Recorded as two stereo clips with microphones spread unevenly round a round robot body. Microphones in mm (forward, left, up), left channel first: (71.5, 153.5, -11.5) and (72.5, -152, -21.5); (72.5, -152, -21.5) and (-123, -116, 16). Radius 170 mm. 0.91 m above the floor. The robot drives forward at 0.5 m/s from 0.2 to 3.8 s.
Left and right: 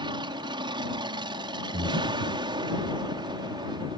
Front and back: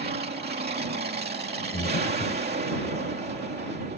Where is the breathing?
45° right; by 2.4 s 135° right.